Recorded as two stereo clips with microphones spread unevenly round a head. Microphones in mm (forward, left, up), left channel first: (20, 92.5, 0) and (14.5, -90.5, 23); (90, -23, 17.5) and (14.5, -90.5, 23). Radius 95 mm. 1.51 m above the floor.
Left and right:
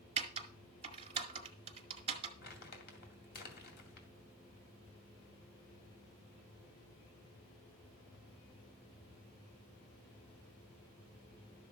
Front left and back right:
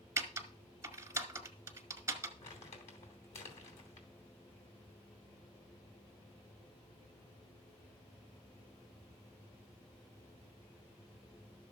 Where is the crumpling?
55° left, 2.5 m.